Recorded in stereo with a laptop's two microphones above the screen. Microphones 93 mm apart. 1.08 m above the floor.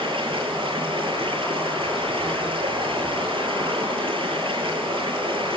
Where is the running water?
60° right (ahead or behind), 9.5 m.